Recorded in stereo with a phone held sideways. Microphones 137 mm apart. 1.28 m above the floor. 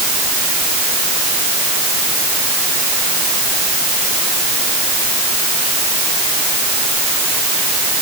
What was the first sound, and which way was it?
Only background noise.